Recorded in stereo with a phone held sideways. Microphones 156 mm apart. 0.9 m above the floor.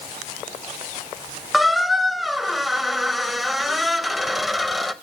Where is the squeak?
Centre (ahead or behind), 0.5 m.